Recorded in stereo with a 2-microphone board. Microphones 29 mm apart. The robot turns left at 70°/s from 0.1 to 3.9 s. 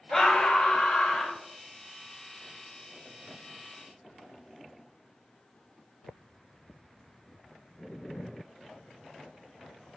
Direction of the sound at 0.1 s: 160° left.